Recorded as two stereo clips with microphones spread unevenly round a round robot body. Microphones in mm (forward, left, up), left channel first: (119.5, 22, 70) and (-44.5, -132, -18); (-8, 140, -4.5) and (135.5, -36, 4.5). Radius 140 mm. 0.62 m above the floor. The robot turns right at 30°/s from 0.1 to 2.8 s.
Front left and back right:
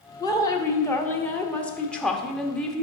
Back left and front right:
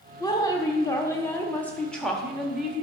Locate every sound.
0.2 s a woman speaking: 150° left, 0.9 m; by 2.8 s 130° right, 0.9 m